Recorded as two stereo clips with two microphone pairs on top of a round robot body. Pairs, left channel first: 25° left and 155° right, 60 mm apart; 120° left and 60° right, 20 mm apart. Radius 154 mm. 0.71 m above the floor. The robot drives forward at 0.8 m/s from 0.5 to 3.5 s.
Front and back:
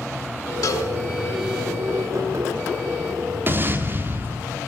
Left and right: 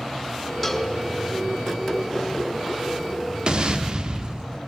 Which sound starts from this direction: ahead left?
A cowbell, at 0.6 s.